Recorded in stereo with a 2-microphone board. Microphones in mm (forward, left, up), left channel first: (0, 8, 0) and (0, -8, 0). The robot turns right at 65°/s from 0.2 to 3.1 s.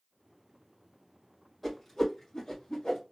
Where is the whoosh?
10° left (ahead or behind), 1.9 m; by 3.0 s 80° left, 1.9 m.